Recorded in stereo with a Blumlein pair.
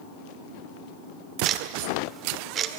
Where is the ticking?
25° right, 1.8 m.